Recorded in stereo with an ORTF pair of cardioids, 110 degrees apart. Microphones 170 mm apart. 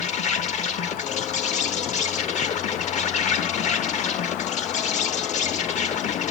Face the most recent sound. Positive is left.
turn(degrees=45)